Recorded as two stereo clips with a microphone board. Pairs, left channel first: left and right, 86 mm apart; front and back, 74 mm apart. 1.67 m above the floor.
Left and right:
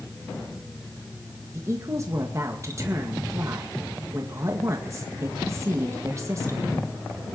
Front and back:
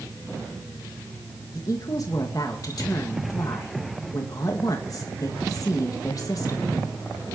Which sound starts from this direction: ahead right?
A woman speaking, at 1.5 s.